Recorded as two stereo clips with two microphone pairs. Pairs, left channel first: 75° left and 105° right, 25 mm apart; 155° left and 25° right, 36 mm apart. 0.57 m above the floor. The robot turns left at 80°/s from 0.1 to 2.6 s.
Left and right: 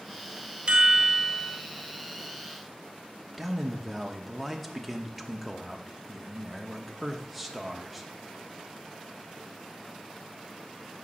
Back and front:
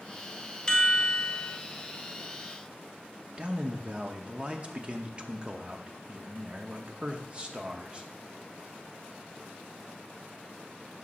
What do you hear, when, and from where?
0.7 s a chime: 140° right, 0.7 m; by 1.6 s 145° left, 0.7 m
3.4 s a man speaking: 25° right, 0.8 m